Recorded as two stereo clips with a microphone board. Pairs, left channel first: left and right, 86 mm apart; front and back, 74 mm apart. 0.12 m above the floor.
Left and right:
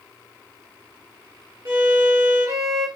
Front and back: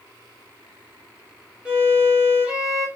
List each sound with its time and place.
1.6 s a violin: 105° right, 2 m